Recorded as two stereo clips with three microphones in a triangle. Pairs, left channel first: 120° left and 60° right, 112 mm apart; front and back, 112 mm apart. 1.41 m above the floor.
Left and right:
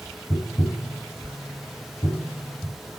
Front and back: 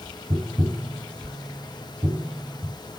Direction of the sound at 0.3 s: 120° left.